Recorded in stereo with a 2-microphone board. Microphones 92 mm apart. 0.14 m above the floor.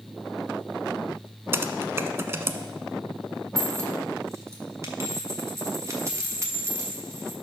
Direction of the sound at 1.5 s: 30° right (ahead or behind).